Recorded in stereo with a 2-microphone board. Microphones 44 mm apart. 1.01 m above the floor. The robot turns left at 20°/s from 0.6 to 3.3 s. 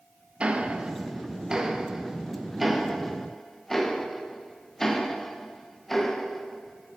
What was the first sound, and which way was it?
Ticking, 25° right (ahead or behind).